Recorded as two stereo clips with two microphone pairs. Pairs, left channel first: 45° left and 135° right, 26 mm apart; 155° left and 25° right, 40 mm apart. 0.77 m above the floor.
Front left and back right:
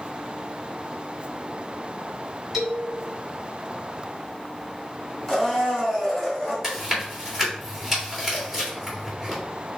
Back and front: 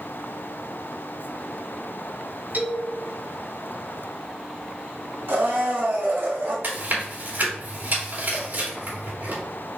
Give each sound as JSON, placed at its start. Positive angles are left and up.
{"t": 2.5, "sound": "a man speaking", "azimuth_deg": -60, "distance_m": 2.5}
{"t": 5.3, "sound": "a blender", "azimuth_deg": -45, "distance_m": 2.0}
{"t": 6.6, "sound": "chewing", "azimuth_deg": -60, "distance_m": 2.5}